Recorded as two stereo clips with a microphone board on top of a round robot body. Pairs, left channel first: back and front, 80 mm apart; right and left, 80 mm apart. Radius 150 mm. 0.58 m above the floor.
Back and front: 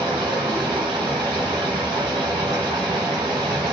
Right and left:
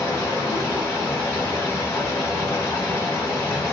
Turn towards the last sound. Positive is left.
turn(degrees=-25)